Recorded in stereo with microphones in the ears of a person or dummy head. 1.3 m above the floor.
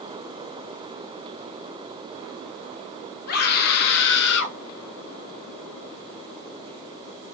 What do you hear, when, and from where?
3.3 s a scream: 55° left (ahead or behind), 3 m; by 4.6 s 70° left (ahead or behind), 2.5 m